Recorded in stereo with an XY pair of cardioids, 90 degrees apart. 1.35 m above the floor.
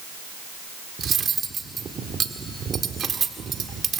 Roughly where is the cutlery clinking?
Ahead right.